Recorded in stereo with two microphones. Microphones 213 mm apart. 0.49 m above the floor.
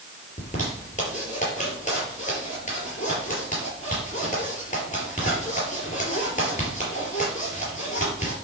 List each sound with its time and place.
0.4 s a zipper: 35° left (ahead or behind), 4.5 m